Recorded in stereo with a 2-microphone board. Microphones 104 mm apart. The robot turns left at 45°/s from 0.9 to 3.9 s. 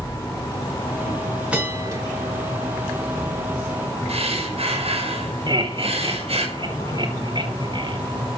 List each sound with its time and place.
1.5 s a bell: 10° right (ahead or behind), 7.5 m; by 2.0 s 35° right (ahead or behind), 7.5 m
4.1 s breathing: 75° right (ahead or behind), 5.5 m
5.5 s laughter: 50° right (ahead or behind), 3.5 m